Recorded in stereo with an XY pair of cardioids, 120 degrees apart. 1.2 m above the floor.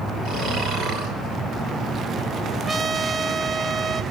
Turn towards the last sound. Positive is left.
turn(degrees=-25)